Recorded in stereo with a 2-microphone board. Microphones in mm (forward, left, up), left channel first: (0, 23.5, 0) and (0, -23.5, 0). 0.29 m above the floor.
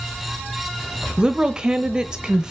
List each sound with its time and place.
1.2 s a woman speaking: 20° right (ahead or behind), 1.0 m